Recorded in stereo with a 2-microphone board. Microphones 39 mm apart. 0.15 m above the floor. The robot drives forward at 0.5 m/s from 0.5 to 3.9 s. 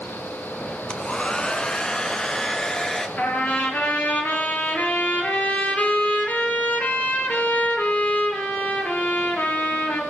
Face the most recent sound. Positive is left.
turn(degrees=50)  # may be behind; listen again after turning